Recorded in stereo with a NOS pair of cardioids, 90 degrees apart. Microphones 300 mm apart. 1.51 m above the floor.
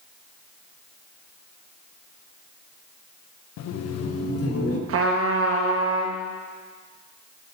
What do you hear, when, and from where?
3.6 s laughter: 65° left, 0.7 m; by 4.8 s 50° left, 1.9 m
4.9 s a trumpet: 50° right, 1.3 m